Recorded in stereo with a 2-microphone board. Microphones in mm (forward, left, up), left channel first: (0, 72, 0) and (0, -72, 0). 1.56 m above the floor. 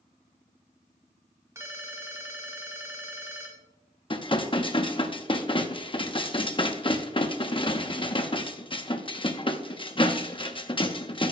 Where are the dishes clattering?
35° left (ahead or behind), 0.8 m.